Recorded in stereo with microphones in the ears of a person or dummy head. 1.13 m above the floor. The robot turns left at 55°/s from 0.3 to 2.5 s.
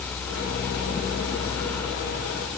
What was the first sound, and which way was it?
Only background noise.